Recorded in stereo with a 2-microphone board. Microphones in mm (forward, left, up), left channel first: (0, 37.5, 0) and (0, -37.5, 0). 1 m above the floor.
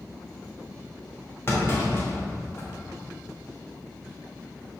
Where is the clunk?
35° left (ahead or behind), 1.3 m.